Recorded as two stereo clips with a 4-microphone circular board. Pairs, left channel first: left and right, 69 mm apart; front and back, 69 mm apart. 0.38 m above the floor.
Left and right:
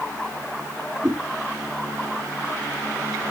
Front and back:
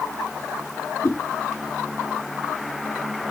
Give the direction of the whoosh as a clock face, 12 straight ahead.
1 o'clock.